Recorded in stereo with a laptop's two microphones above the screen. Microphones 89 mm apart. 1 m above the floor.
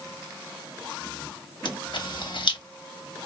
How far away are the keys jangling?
I don't hear keys jangling.